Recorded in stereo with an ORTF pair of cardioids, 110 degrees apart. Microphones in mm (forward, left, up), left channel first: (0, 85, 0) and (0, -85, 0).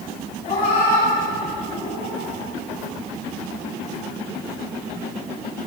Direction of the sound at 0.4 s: 60° left.